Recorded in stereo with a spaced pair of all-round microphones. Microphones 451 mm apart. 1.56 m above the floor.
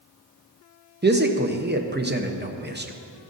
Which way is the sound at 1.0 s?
20° right (ahead or behind).